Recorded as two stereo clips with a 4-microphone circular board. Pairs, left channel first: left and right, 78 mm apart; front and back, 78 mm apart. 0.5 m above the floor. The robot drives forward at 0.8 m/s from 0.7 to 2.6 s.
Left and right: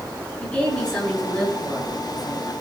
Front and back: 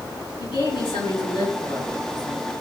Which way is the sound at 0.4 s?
15° left.